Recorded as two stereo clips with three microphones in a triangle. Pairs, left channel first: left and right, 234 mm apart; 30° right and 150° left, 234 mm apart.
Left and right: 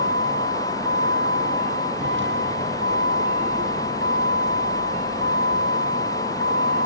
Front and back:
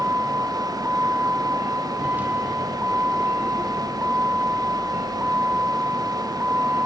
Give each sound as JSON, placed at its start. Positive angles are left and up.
{"t": 0.0, "sound": "a vehicle", "azimuth_deg": -125}